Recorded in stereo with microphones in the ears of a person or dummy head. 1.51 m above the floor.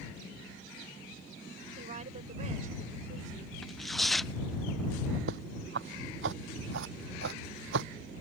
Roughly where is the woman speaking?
Right.